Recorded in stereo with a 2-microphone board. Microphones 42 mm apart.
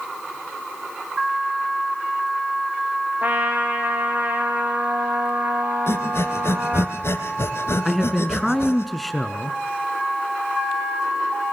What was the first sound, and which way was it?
A trumpet, 40° right (ahead or behind).